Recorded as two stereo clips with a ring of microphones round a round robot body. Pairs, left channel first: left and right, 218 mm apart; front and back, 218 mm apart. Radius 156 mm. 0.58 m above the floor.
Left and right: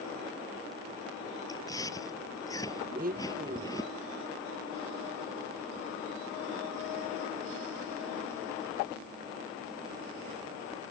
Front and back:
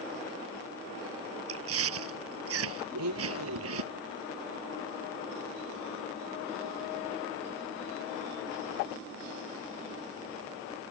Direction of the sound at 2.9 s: 155° right.